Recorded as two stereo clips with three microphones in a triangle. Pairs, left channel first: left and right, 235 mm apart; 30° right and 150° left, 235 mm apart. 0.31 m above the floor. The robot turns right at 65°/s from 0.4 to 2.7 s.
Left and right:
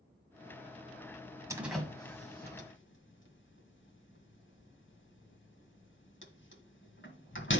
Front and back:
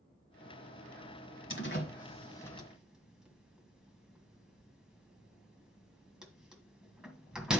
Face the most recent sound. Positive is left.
turn(degrees=65)